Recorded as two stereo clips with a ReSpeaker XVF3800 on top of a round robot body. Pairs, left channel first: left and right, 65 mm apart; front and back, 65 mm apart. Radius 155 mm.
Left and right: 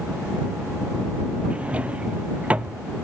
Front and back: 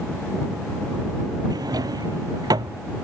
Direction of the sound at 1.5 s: 160° right.